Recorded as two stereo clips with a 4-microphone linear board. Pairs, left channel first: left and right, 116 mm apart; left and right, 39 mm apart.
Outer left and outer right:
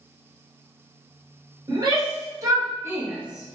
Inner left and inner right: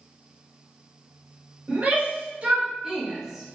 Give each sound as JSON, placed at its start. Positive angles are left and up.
{"t": 1.7, "sound": "a shout", "side_deg": -35, "distance_m": 1.3}